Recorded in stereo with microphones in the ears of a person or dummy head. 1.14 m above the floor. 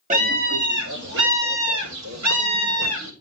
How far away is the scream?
About 2.5 m.